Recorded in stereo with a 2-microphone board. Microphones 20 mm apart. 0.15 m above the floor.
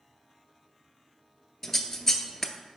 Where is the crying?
No crying in this recording.